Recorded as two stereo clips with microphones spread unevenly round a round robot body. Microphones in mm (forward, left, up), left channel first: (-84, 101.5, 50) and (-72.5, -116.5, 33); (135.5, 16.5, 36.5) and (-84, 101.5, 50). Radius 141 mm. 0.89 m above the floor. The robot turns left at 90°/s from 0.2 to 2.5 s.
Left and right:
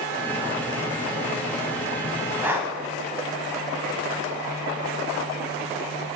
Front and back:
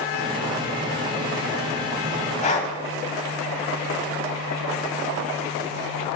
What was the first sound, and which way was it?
Breathing, straight ahead.